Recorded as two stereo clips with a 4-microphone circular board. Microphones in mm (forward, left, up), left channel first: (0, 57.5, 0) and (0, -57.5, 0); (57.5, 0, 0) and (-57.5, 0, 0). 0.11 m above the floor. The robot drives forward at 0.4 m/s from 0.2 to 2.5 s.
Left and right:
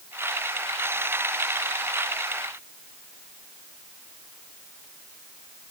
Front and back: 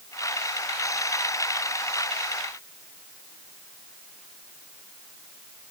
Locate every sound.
Only background noise.